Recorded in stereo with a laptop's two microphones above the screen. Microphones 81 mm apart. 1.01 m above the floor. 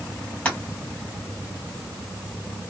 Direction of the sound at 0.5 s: 15° left (ahead or behind).